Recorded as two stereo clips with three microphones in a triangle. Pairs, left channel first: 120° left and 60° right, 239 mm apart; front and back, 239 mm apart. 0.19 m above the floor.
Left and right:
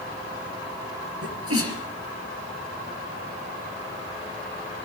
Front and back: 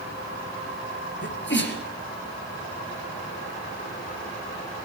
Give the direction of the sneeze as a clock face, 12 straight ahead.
1 o'clock.